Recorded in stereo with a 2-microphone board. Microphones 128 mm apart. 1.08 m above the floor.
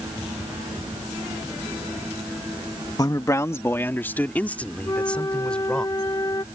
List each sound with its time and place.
3.0 s a man speaking: 30° left (ahead or behind); by 5.8 s 5° left (ahead or behind)
4.8 s a flute: 30° left (ahead or behind)